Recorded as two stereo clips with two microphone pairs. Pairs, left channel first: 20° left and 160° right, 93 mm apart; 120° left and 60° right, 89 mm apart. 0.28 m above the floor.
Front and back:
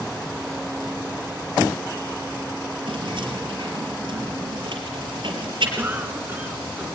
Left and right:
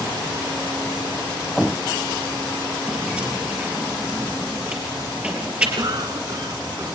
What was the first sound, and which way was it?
Keys jangling, 135° right.